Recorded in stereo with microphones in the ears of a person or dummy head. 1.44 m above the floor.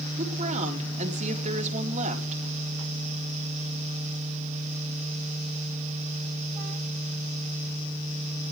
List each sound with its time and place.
0.2 s a woman speaking: 45° right (ahead or behind), 4 m